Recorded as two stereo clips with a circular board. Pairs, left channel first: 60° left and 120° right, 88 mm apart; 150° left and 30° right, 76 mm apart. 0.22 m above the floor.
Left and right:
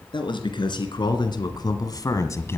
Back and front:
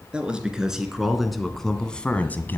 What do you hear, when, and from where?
0.1 s a man speaking: 45° left, 2.5 m; by 2.6 s 105° left, 1.2 m